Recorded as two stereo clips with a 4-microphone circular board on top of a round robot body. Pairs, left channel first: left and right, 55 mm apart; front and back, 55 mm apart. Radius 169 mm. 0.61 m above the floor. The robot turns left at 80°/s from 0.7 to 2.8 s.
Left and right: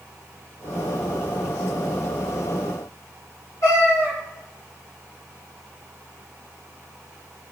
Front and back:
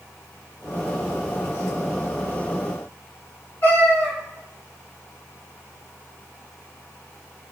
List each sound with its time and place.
3.6 s a cat meowing: 55° left, 2.0 m